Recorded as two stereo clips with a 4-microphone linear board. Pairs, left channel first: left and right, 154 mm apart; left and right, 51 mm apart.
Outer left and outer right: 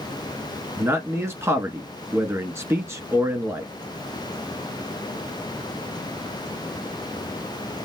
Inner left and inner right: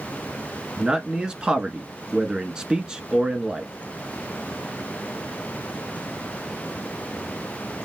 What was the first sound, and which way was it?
A man speaking, 15° right (ahead or behind).